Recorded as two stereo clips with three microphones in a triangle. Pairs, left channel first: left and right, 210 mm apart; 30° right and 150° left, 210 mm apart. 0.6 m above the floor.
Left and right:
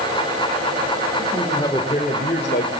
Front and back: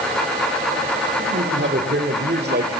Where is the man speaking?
170° left, 2.5 m; by 2.7 s 115° left, 2.5 m.